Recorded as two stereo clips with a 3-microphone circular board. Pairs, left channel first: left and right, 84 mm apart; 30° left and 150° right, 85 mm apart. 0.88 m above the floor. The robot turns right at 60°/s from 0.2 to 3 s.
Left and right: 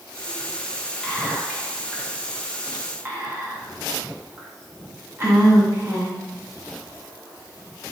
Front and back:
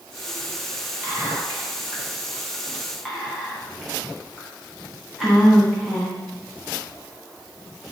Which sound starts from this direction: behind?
Whispering, at 1.0 s.